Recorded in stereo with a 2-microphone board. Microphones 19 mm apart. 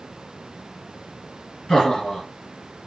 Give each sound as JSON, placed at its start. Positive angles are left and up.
{"t": 1.7, "sound": "laughter", "side_deg": 70, "distance_m": 2.5}